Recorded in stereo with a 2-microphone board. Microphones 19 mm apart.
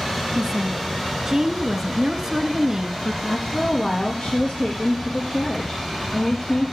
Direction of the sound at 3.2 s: 70° left (ahead or behind).